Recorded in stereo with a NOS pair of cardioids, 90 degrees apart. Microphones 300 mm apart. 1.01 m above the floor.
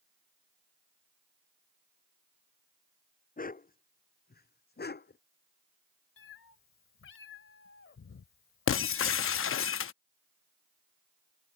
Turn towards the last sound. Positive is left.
turn(degrees=45)